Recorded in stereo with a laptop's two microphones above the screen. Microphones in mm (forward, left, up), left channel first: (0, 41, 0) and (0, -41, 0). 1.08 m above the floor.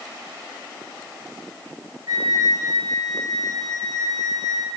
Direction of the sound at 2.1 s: 50° right (ahead or behind).